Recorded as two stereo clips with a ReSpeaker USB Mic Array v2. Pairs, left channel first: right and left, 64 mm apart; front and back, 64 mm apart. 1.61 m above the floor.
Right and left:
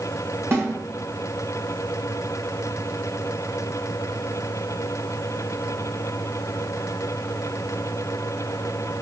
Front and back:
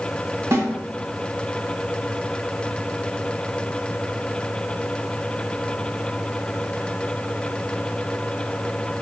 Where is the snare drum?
140° left, 1.1 m.